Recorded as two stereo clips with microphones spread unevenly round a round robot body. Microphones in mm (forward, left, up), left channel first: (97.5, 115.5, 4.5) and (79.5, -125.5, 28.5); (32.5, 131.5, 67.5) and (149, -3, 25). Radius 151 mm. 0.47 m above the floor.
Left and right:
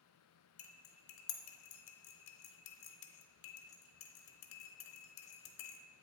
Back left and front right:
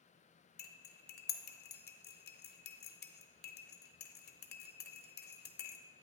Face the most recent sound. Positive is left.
turn(degrees=90)